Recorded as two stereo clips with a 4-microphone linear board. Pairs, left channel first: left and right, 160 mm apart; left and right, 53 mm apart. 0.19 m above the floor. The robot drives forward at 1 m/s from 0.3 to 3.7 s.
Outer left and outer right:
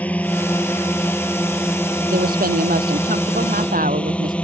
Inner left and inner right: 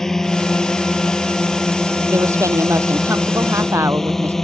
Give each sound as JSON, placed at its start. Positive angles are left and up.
{"t": 0.0, "sound": "a drone", "side_deg": 10}
{"t": 2.1, "sound": "a woman speaking", "side_deg": -80}